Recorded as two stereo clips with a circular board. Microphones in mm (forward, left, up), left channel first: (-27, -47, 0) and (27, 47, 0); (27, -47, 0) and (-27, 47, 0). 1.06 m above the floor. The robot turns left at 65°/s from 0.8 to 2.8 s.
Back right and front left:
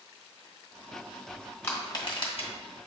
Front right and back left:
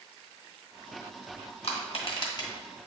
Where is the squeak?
I don't hear a squeak.